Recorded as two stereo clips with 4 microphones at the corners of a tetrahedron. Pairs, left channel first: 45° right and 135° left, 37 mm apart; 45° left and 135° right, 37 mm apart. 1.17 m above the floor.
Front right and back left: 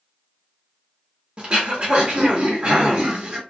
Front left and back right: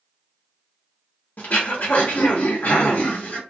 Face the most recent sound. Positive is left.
turn(degrees=80)